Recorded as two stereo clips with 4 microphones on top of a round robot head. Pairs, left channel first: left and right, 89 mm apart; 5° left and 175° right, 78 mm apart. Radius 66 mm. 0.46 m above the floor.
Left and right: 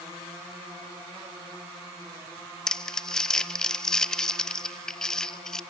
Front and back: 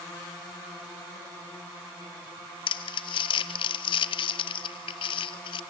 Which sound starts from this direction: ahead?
Crumpling, at 2.7 s.